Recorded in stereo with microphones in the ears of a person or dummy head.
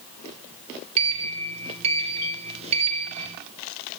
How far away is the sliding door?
About 1.2 m.